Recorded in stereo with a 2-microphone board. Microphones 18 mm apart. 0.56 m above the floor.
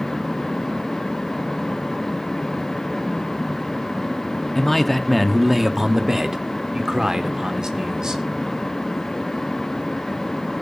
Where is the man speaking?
10° left (ahead or behind), 1.0 m; by 8.2 s 40° right (ahead or behind), 2.5 m.